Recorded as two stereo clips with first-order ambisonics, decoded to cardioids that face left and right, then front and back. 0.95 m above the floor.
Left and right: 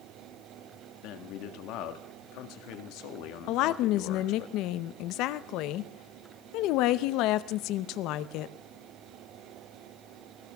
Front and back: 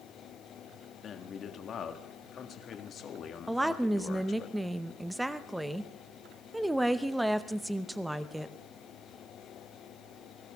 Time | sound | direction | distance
1.0 | a man speaking | 65° left | 1.6 m
3.5 | a woman speaking | 100° left | 0.7 m